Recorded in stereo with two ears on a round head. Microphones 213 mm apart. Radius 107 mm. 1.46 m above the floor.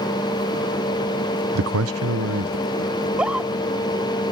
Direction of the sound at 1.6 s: 60° right (ahead or behind).